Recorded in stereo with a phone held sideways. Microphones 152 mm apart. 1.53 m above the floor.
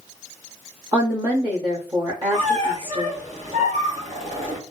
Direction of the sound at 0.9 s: 30° right (ahead or behind).